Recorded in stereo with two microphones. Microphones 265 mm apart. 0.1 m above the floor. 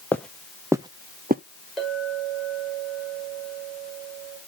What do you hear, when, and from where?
0.1 s footsteps: 5° left (ahead or behind), 1.1 m; by 1.4 s 35° right (ahead or behind), 0.9 m
1.8 s a clink: centre (ahead or behind), 4.5 m